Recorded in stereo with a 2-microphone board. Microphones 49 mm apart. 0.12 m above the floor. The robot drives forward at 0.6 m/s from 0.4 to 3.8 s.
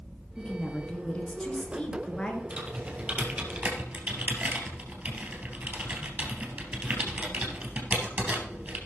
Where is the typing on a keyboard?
35° right (ahead or behind), 3 m; by 8.8 s 40° right (ahead or behind), 2.5 m.